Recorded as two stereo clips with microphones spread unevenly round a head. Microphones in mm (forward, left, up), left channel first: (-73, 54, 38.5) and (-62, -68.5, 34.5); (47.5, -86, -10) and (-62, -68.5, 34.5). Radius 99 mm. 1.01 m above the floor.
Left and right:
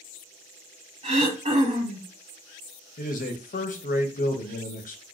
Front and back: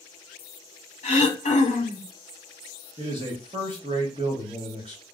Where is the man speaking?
100° left, 0.7 m.